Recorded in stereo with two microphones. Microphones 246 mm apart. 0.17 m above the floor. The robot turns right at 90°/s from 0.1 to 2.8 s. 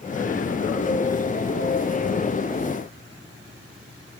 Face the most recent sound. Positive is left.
No sound to turn to.